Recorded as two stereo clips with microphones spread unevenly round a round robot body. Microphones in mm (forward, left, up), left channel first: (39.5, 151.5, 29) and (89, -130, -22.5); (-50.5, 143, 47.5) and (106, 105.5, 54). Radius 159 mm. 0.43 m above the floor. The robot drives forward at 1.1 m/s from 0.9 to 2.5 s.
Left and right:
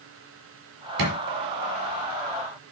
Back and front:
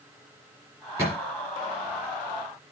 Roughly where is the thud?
Right.